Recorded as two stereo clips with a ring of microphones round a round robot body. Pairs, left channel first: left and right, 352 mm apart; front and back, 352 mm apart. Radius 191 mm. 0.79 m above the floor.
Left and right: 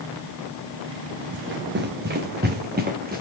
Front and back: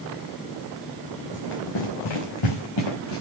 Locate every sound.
1.3 s running footsteps: 30° right, 3.5 m; by 3.2 s 25° right, 4 m